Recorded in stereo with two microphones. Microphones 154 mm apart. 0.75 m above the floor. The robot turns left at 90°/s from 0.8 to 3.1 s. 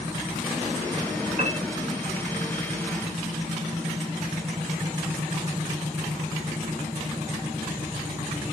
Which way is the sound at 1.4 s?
60° right (ahead or behind).